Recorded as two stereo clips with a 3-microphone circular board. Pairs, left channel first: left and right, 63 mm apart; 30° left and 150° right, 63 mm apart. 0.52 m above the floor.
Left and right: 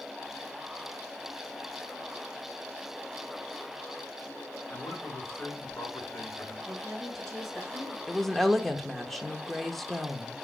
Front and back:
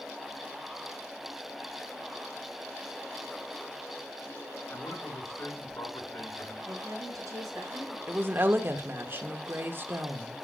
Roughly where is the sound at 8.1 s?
Behind.